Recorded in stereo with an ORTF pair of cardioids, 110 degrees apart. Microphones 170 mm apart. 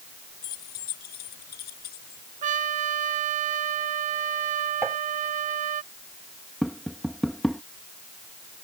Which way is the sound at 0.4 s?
70° left.